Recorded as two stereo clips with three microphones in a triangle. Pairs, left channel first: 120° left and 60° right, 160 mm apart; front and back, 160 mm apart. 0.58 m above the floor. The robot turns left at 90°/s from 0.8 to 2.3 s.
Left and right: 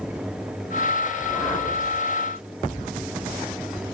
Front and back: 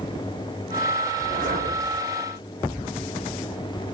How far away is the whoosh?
About 1.3 m.